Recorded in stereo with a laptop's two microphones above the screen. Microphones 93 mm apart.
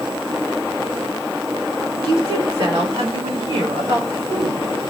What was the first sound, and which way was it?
A woman speaking, 60° right (ahead or behind).